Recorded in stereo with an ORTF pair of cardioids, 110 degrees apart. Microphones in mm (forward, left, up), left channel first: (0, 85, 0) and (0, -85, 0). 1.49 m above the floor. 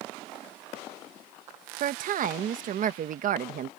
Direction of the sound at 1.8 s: 55° right.